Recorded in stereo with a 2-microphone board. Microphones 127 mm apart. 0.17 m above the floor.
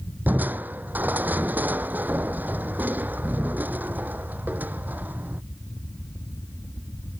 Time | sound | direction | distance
0.3 | crushing | 15° right (ahead or behind) | ?